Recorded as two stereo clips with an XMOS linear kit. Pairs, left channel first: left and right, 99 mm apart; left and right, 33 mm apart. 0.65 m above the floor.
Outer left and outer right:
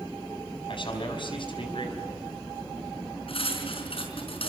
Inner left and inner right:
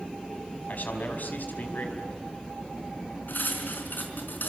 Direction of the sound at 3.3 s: 75° left (ahead or behind).